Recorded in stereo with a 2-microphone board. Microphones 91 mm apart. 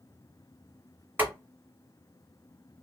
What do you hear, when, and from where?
1.2 s boiling: 20° right (ahead or behind), 1.8 m